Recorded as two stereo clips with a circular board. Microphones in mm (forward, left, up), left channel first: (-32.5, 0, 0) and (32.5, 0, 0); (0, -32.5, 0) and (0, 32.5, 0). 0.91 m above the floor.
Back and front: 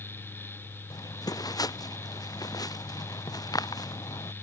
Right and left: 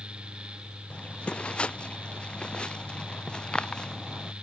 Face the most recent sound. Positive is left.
turn(degrees=-170)